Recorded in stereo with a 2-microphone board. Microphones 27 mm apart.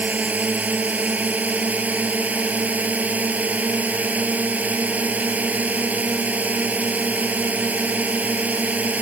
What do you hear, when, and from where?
0.0 s a drone: 70° right (ahead or behind)